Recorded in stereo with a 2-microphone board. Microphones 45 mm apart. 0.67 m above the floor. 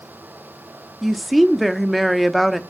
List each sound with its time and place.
1.0 s a woman speaking: centre (ahead or behind), 0.8 m